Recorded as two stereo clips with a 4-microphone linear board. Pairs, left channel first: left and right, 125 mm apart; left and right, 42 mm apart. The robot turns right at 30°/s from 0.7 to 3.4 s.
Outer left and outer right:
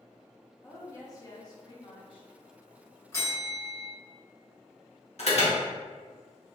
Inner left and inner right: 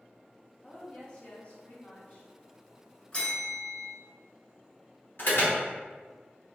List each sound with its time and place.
0.6 s a woman speaking: 30° left, 0.8 m; by 2.3 s 75° left, 0.8 m
3.1 s a bell: 25° left (ahead or behind), 1.2 m; by 3.9 s 20° left (ahead or behind), 1.2 m
5.2 s an alarm: 60° left (ahead or behind), 1.0 m